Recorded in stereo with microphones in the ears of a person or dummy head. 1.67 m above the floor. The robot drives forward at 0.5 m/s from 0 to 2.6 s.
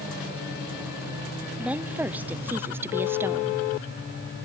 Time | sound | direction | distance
1.6 | a woman speaking | 10° right (ahead or behind) | 1.1 m